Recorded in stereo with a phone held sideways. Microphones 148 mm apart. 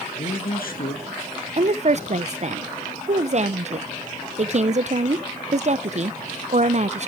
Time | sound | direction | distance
0.1 | a man speaking | 80° left | 1.8 m
1.6 | a woman speaking | 50° right (ahead or behind) | 0.5 m